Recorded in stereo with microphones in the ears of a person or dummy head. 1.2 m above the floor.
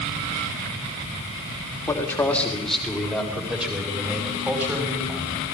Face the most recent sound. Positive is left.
turn(degrees=-10)  # may be behind; listen again after turning